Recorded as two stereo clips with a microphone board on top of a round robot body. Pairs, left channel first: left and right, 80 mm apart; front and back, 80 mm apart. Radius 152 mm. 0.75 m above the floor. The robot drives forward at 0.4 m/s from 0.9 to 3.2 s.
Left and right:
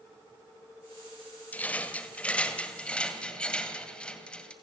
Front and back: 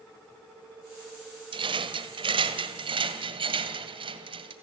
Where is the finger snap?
I don't hear a finger snap.